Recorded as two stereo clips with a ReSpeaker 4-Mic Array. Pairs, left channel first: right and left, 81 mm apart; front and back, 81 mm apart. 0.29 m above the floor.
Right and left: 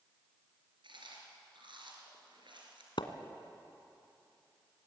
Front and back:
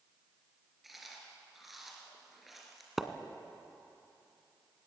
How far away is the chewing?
About 4 m.